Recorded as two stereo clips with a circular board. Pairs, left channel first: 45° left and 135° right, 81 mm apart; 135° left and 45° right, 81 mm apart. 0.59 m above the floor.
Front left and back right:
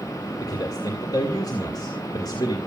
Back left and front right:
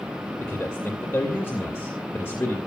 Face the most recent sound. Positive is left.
turn(degrees=75)